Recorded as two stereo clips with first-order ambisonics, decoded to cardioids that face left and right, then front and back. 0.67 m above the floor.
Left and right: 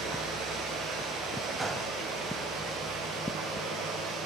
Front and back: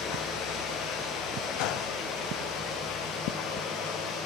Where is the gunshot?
10° right, 0.9 m.